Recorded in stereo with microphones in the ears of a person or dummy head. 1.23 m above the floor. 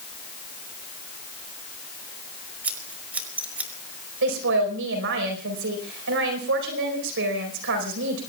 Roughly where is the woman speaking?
Right.